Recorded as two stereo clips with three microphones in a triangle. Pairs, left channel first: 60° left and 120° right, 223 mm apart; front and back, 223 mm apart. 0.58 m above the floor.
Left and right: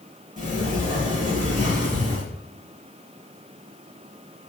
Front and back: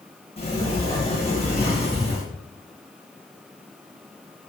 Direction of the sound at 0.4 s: 65° right.